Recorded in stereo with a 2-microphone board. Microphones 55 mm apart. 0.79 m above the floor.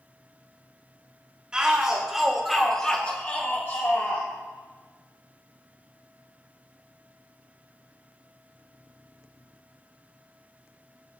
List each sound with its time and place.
1.5 s a shout: 15° right (ahead or behind), 3.5 m; by 4.3 s 65° left (ahead or behind), 2 m